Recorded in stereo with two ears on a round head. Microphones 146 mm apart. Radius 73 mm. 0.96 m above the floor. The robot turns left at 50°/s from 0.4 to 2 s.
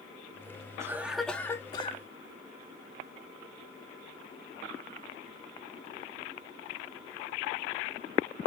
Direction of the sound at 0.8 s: 160° right.